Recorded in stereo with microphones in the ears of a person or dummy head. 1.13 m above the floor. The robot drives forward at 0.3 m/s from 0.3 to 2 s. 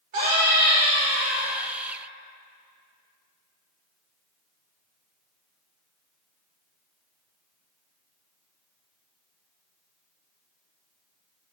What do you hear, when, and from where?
0.1 s a scream: 40° right (ahead or behind), 4.5 m